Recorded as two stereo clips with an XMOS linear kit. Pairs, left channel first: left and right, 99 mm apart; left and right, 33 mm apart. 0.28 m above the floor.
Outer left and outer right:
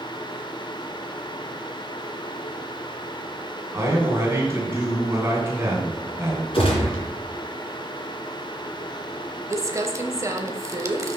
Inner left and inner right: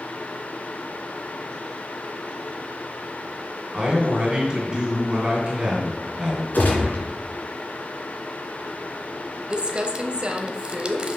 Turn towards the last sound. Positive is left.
turn(degrees=-30)  # may be behind; listen again after turning